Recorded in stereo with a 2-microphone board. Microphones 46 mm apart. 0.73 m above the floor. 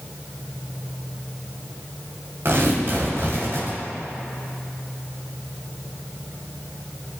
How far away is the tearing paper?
About 3 m.